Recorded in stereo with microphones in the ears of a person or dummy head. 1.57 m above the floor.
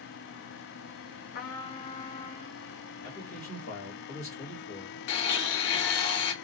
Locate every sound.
1.4 s a trumpet: 50° left (ahead or behind), 0.5 m
3.0 s a man speaking: 70° left (ahead or behind), 1.3 m
5.1 s a blender: 65° left (ahead or behind), 0.7 m